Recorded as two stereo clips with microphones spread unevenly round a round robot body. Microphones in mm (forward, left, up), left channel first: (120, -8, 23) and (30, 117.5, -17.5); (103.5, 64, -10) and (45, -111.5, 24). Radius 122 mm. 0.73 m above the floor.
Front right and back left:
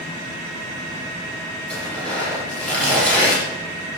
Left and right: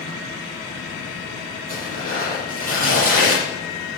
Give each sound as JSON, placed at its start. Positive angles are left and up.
{"t": 1.7, "sound": "tearing paper", "azimuth_deg": -150, "distance_m": 9.0}